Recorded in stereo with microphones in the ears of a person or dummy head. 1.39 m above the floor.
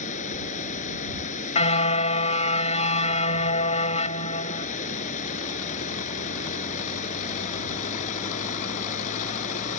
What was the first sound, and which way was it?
Running water, 50° left (ahead or behind).